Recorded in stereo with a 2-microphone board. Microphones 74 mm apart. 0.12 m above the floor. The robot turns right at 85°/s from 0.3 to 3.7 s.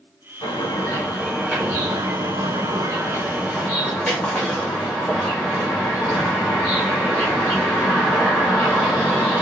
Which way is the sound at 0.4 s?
105° left.